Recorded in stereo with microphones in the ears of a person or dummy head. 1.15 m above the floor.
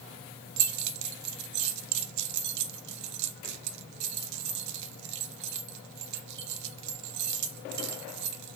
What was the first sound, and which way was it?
Keys jangling, 60° right (ahead or behind).